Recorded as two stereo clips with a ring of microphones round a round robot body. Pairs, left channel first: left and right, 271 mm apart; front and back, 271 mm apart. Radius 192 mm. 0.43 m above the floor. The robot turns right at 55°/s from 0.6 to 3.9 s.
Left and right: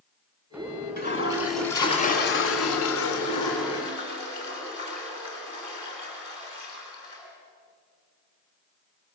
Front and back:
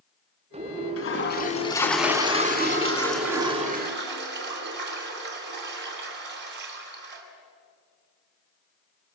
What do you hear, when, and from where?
1.0 s a toilet flushing: 35° left, 3 m; by 7.2 s 165° right, 3 m